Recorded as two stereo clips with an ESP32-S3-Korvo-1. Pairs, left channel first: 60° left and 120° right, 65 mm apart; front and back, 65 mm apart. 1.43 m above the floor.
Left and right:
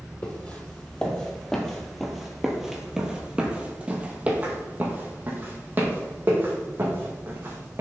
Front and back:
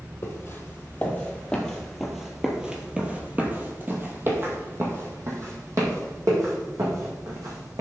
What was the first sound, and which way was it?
Footsteps, 15° left.